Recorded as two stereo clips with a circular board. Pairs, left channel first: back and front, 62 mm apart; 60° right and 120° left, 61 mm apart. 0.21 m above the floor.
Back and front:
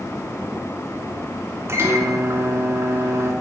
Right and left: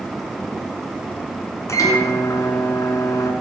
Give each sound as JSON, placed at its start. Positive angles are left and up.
{"t": 1.7, "sound": "a microwave", "azimuth_deg": -35, "distance_m": 2.5}